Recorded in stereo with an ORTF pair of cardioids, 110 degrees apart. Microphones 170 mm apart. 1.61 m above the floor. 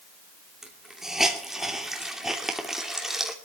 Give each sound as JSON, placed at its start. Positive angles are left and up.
{"t": 0.6, "sound": "a hiss", "azimuth_deg": 0, "distance_m": 3.0}